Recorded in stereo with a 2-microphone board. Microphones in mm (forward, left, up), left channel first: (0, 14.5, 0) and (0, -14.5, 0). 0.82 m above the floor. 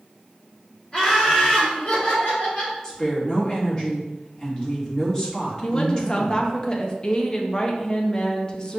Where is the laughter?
35° left (ahead or behind), 1.4 m; by 2.7 s 65° left (ahead or behind), 2.5 m.